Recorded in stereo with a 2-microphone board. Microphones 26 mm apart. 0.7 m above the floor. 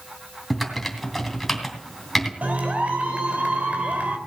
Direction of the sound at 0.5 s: 5° left (ahead or behind).